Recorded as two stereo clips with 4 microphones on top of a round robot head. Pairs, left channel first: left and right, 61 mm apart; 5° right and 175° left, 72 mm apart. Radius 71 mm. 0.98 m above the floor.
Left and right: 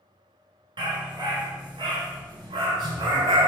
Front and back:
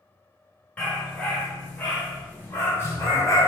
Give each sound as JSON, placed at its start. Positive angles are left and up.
{"t": 0.8, "sound": "a dog barking", "azimuth_deg": -80, "distance_m": 4.5}